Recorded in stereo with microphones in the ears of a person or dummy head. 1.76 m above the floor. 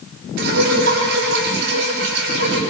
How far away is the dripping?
About 7.5 m.